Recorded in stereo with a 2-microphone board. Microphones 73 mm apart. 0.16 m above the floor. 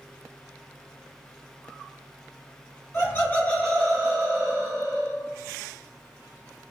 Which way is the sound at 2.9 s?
35° left (ahead or behind).